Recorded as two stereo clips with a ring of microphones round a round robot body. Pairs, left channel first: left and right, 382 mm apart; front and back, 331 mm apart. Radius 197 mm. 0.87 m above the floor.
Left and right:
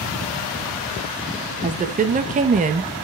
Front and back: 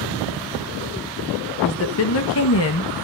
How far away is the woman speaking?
About 1.2 m.